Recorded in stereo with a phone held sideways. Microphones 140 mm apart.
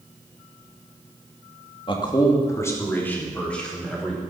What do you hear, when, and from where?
1.9 s a man speaking: 35° left (ahead or behind), 2 m; by 4.2 s centre (ahead or behind), 4.5 m